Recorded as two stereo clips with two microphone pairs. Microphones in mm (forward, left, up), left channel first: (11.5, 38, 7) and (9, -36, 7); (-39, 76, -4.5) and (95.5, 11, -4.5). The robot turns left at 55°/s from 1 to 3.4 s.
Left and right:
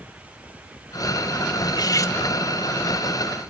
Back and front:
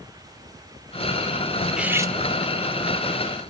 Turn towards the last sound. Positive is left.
turn(degrees=-30)